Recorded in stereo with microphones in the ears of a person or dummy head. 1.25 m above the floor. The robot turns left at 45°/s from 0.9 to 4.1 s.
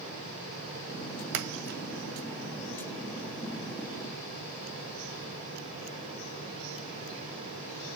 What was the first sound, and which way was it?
A splash, 65° right (ahead or behind).